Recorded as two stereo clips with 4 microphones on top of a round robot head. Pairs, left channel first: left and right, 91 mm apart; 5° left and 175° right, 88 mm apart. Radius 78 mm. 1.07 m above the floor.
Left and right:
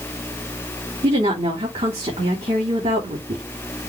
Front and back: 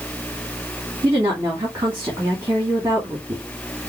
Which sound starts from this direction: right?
A woman speaking, at 1.0 s.